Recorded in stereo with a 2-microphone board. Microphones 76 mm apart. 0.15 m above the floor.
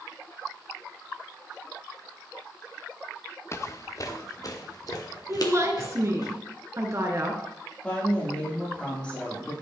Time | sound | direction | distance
3.5 | footsteps | 40° left (ahead or behind) | 0.8 m
5.3 | a woman speaking | 40° right (ahead or behind) | 2.0 m
7.8 | a woman speaking | 15° left (ahead or behind) | 5.5 m